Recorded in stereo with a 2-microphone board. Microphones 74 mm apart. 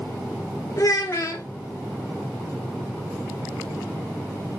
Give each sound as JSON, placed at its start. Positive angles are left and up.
{"t": 0.8, "sound": "a child speaking", "side_deg": 45, "distance_m": 0.8}